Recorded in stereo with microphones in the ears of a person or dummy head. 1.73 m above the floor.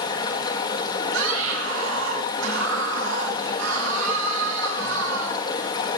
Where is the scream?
80° right, 7.5 m.